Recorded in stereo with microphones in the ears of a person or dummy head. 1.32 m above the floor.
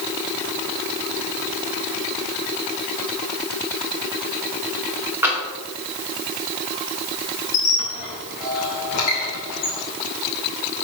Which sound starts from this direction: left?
A squeak, at 7.5 s.